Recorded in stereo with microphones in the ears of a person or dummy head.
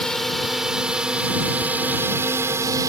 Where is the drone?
Centre (ahead or behind); by 2.9 s 20° right (ahead or behind).